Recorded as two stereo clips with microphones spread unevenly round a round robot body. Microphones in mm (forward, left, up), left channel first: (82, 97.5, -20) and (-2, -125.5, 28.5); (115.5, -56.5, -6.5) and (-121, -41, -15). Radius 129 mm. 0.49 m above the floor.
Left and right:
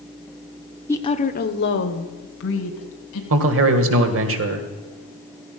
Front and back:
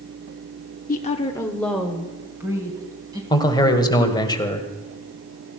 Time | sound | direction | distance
0.9 | a woman speaking | 15° left | 0.8 m
3.3 | a man speaking | 75° right | 2 m